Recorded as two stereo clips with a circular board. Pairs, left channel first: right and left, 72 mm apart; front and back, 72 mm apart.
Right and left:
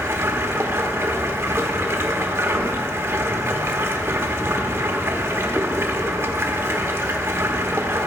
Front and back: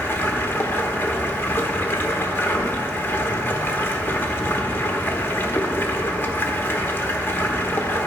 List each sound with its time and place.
0.0 s running water: 50° left, 0.9 m